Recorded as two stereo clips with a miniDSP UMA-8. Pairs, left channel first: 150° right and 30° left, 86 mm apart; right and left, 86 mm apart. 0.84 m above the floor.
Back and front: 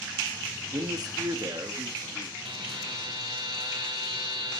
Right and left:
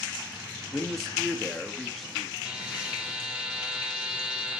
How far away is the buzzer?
About 2.0 m.